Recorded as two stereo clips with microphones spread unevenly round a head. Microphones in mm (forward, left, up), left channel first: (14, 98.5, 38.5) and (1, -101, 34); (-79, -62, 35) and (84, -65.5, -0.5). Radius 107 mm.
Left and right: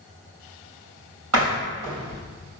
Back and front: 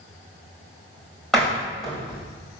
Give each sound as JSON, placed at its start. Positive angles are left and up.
{"t": 1.3, "sound": "a door slam", "azimuth_deg": -95, "distance_m": 3.5}